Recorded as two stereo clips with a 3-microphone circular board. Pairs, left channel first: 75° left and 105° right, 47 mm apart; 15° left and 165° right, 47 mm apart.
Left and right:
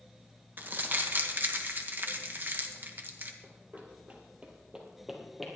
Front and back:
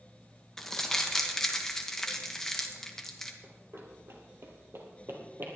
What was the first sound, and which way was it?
Crumpling, 65° right.